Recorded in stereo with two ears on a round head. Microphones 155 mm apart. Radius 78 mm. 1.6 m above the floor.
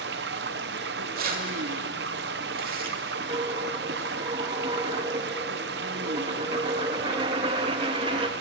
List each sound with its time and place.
0.0 s running water: 65° right (ahead or behind), 0.9 m
1.1 s keys jangling: 55° right (ahead or behind), 2.5 m
3.3 s a dropped coin: 30° right (ahead or behind), 1.0 m